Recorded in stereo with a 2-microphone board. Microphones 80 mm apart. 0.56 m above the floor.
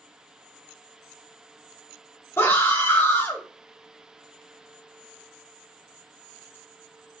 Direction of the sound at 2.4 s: 30° left (ahead or behind).